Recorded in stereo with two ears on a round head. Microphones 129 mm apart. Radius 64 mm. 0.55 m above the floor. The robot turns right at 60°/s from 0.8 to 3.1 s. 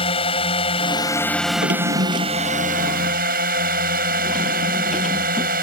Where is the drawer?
85° right; by 5.5 s centre (ahead or behind).